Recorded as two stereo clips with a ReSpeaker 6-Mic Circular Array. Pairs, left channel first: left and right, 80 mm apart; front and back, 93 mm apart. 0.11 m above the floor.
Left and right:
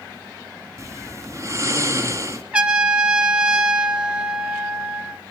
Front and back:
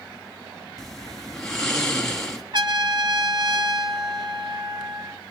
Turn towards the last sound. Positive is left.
turn(degrees=-165)